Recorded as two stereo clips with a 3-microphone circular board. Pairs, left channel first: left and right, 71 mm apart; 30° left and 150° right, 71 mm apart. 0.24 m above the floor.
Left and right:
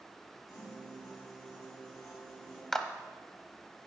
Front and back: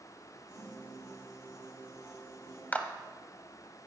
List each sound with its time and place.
0.5 s a piano: 50° left, 4 m
2.7 s a clap: 15° left, 0.7 m